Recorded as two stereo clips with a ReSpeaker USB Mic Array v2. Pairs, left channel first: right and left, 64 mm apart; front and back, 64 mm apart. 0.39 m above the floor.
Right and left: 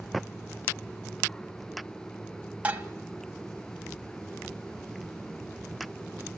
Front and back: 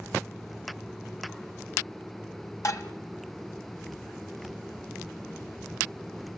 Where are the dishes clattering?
25° left, 1.7 m.